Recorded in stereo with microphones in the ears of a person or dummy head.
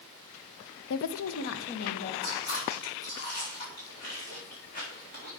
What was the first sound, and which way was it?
A woman speaking, 80° left.